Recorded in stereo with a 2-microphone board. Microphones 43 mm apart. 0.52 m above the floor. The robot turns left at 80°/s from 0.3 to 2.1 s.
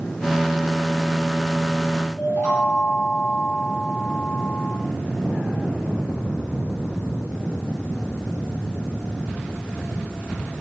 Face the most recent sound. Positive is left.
turn(degrees=55)  # may be behind; listen again after turning